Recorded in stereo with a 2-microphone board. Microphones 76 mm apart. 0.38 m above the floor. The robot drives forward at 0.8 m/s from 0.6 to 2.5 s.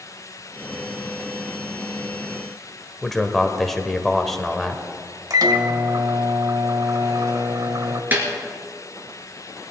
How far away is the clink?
No clink in this recording.